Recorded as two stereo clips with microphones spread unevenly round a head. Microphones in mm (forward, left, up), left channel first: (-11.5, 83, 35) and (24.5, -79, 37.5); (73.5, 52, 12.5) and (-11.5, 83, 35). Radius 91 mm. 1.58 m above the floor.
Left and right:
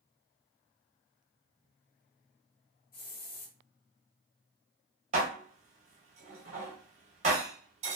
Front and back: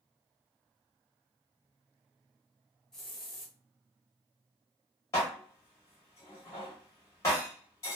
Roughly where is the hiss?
Left.